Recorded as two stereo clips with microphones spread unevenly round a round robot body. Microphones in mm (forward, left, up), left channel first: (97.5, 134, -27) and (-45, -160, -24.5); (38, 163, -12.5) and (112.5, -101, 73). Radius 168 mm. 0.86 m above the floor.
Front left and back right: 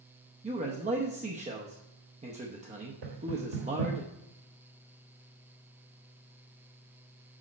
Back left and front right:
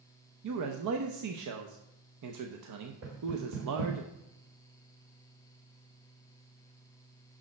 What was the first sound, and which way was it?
A man speaking, 50° right.